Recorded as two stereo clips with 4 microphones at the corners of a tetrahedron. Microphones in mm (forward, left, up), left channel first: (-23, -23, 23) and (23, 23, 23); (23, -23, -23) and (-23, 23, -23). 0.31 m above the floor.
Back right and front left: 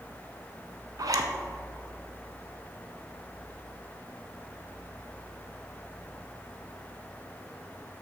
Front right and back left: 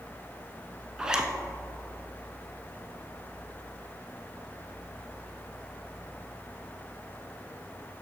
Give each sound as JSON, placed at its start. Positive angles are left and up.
{"t": 1.0, "sound": "a zipper", "azimuth_deg": 55, "distance_m": 0.6}